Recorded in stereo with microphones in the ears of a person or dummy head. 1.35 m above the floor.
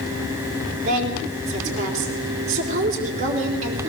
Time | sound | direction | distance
0.8 | a woman speaking | 45° right (ahead or behind) | 4 m